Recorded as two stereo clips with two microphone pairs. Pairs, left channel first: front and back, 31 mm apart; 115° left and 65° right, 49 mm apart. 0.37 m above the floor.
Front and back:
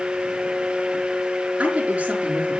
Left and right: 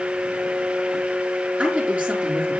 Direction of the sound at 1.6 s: 130° right.